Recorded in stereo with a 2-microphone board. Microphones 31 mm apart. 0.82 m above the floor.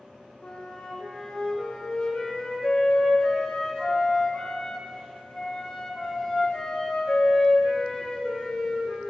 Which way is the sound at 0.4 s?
30° left (ahead or behind).